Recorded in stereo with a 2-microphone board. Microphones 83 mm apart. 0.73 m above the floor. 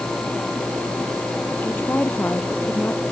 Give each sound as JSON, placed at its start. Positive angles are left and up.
{"t": 1.6, "sound": "a woman speaking", "side_deg": 25}